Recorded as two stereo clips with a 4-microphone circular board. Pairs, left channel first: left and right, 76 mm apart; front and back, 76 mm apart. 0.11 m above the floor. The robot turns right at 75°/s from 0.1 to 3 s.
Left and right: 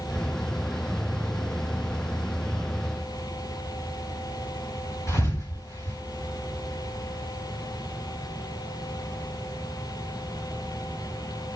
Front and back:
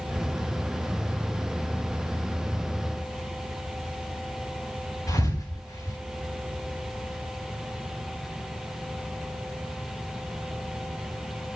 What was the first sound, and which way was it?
A thud, 40° left.